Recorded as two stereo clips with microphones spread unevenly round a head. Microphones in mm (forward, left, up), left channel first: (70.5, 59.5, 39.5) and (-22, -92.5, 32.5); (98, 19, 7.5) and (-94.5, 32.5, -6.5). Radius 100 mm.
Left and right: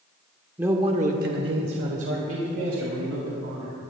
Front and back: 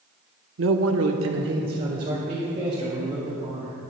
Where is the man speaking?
160° left, 1.0 m; by 3.7 s 115° right, 3.5 m.